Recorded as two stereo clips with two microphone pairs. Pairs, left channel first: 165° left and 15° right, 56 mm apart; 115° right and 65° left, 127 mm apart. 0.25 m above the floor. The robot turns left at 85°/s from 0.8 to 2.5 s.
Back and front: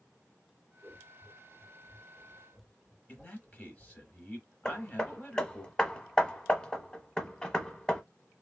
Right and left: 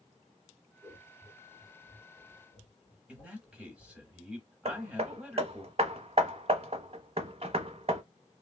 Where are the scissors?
5° left, 1.9 m; by 4.1 s 140° right, 1.9 m.